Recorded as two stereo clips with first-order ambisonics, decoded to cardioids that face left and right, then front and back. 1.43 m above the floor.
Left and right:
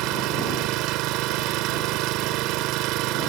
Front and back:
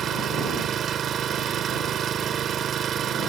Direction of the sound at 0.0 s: 120° right.